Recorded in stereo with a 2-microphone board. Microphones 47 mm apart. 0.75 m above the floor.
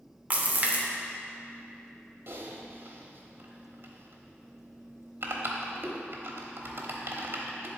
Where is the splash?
35° right (ahead or behind), 0.7 m.